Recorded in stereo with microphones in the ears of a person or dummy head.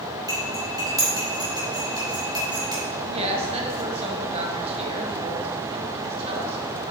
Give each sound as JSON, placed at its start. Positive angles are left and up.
{"t": 0.3, "sound": "cutlery clinking", "side_deg": -25, "distance_m": 2.5}
{"t": 3.1, "sound": "a woman speaking", "side_deg": -35, "distance_m": 1.4}